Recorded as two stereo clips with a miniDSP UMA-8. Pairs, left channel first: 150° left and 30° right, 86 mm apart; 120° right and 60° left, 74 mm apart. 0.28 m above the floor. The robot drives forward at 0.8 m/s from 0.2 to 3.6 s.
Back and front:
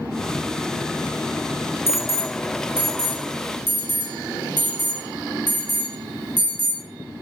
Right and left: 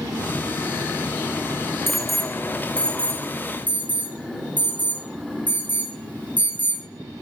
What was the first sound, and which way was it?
An alarm, 140° left.